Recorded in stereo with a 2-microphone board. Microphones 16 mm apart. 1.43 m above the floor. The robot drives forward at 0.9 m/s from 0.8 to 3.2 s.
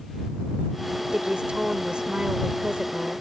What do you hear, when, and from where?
1.1 s a woman speaking: 80° right